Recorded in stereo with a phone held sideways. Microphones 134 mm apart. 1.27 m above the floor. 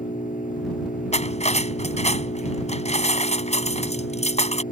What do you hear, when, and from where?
0.0 s an engine running: 80° left
1.1 s cutlery clinking: 55° left (ahead or behind)